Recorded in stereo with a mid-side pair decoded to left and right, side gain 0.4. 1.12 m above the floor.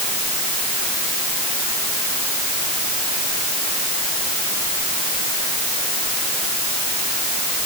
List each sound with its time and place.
Only background noise.